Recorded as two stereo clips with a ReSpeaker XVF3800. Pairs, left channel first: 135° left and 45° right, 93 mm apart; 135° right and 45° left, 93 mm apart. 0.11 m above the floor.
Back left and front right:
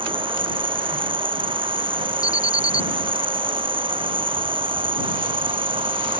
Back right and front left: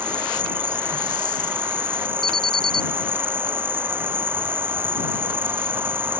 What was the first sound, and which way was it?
An insect, 25° right.